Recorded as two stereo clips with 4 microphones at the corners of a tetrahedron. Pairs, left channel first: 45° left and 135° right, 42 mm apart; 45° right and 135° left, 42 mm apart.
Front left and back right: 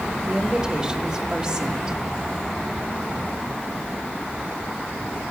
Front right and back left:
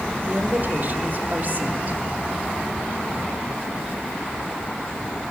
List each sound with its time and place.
0.3 s a woman speaking: 155° left, 1.4 m